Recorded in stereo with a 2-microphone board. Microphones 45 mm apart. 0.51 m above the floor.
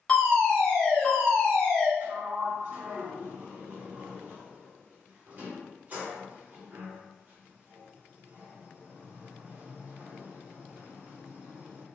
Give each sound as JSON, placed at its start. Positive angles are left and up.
{"t": 0.1, "sound": "a fire alarm", "side_deg": 20, "distance_m": 1.8}
{"t": 2.0, "sound": "a sliding door", "side_deg": -35, "distance_m": 1.8}